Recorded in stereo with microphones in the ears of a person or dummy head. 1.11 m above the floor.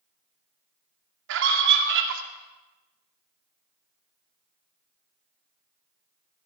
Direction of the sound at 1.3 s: 70° right (ahead or behind).